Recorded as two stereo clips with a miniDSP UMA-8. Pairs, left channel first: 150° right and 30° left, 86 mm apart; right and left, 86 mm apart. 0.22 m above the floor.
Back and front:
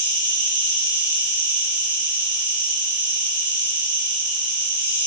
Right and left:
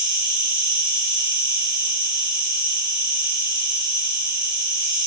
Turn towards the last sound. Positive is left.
turn(degrees=95)